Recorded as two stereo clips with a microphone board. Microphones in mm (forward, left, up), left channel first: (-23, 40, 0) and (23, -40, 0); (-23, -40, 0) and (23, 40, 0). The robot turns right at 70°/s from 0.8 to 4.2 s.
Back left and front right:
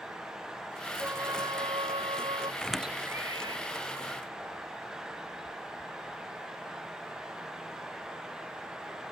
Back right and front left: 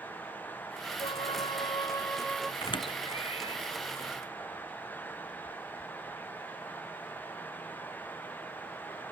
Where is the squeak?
160° right; by 3.6 s 90° right.